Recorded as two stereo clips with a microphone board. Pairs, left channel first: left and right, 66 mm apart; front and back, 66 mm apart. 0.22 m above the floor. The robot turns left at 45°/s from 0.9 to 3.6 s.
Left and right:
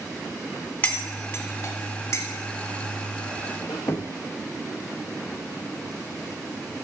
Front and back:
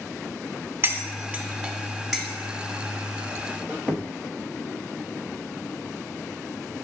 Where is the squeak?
110° left, 0.7 m.